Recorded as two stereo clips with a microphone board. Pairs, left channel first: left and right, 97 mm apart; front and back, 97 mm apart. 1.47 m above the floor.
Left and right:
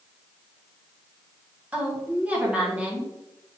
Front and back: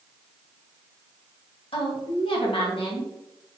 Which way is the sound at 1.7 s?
15° right.